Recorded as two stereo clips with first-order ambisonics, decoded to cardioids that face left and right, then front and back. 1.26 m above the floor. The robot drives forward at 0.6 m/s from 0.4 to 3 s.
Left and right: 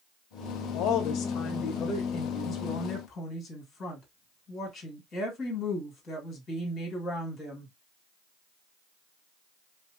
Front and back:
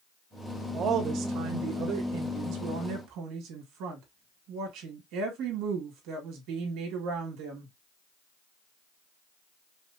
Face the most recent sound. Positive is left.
turn(degrees=155)